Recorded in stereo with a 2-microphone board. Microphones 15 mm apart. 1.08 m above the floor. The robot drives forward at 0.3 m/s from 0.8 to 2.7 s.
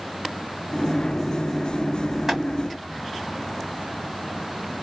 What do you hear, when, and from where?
2.3 s boiling: 20° right (ahead or behind), 2 m; by 2.4 s 15° right (ahead or behind), 2 m